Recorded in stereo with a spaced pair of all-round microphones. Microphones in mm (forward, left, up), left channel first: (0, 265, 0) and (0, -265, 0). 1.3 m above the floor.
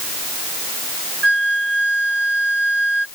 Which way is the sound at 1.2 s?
55° right (ahead or behind).